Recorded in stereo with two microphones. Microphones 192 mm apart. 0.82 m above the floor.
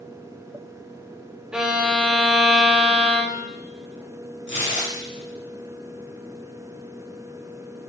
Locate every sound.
1.5 s a violin: 5° right (ahead or behind), 0.6 m
4.5 s tearing paper: 75° left (ahead or behind), 0.9 m